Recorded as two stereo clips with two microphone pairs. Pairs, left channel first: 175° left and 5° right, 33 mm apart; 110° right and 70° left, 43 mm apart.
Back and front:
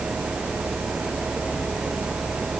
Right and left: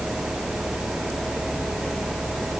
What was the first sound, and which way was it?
Only background noise.